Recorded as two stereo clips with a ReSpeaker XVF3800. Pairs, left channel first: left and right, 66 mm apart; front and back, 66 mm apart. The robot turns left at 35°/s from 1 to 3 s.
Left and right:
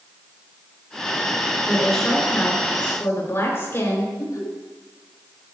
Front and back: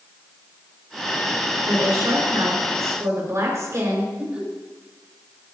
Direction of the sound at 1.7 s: 175° right.